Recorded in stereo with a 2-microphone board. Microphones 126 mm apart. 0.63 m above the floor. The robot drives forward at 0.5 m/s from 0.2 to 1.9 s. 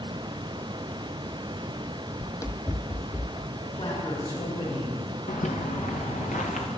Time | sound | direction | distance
2.2 | running footsteps | 5° left (ahead or behind) | 0.6 m
3.6 | a man speaking | 60° left (ahead or behind) | 6 m
5.3 | footsteps | 75° left (ahead or behind) | 2.5 m